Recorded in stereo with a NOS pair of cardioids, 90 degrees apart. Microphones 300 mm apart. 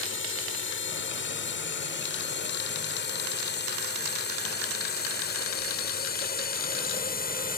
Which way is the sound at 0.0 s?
45° left.